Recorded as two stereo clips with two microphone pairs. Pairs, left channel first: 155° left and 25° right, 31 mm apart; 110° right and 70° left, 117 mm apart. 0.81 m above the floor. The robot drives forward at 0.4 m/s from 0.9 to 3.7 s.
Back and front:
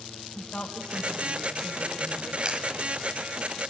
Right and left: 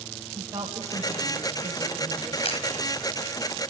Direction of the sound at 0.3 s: 130° left.